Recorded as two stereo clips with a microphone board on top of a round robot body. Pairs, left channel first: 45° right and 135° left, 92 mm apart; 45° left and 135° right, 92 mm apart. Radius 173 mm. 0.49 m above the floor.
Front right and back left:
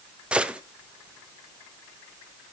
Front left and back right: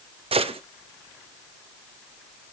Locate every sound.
0.3 s a gunshot: 145° right, 0.8 m